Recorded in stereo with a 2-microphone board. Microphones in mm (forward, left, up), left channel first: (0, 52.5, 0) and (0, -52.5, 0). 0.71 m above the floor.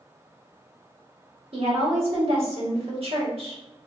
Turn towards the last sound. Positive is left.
turn(degrees=-60)  # may be behind; listen again after turning